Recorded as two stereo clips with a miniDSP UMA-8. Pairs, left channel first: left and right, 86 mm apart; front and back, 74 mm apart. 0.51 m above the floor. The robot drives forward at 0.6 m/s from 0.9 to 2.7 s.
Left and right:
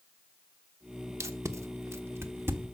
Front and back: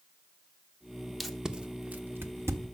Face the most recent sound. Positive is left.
turn(degrees=-145)